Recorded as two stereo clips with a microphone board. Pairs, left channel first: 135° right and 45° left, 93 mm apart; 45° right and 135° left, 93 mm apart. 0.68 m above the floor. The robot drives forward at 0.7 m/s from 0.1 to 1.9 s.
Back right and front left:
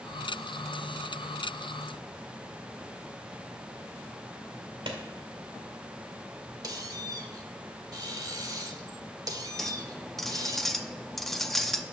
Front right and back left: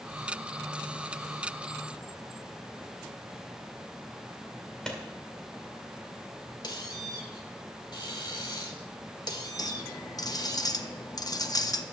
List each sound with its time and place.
4.9 s a clap: 40° left, 1.8 m
6.6 s a squeak: 5° right, 1.2 m
9.6 s a clink: 50° right, 0.6 m